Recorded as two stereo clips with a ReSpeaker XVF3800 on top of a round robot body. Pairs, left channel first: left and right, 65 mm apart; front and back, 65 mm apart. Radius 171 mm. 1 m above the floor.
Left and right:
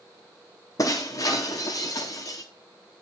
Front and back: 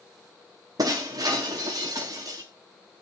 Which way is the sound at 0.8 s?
140° left.